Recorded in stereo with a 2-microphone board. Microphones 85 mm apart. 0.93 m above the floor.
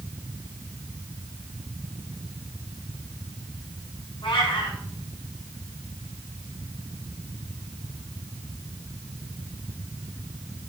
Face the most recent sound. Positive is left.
turn(degrees=80)